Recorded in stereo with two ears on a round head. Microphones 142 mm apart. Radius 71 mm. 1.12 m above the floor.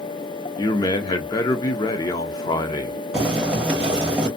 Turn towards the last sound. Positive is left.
turn(degrees=-5)  # may be behind; listen again after turning